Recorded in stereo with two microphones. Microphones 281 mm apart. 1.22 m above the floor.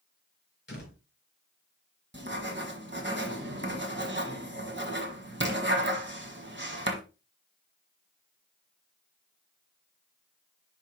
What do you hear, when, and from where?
0.7 s a door slam: 40° left (ahead or behind), 4.5 m
2.1 s writing: 40° right (ahead or behind), 1.4 m